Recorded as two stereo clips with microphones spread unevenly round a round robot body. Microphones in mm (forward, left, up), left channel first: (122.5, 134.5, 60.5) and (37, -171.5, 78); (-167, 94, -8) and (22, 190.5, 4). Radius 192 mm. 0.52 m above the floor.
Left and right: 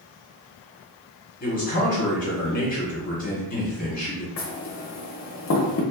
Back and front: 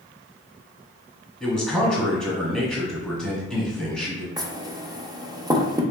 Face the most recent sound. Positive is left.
turn(degrees=100)